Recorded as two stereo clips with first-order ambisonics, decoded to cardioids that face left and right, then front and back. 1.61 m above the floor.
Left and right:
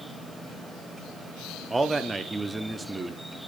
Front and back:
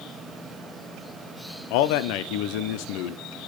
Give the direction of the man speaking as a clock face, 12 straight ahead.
12 o'clock.